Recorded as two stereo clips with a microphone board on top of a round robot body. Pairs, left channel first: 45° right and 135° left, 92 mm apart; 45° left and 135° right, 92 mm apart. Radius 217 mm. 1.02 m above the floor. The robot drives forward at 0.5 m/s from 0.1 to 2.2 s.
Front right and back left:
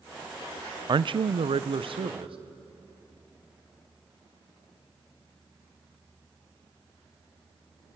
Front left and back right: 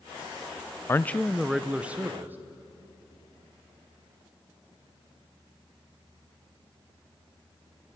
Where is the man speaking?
105° left, 0.5 m; by 2.4 s 155° left, 0.9 m.